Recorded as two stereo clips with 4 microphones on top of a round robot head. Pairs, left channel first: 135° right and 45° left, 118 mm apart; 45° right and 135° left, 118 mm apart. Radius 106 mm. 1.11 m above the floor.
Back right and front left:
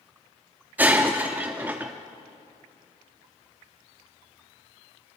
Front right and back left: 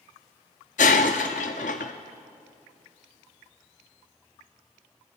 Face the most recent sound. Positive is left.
turn(degrees=-30)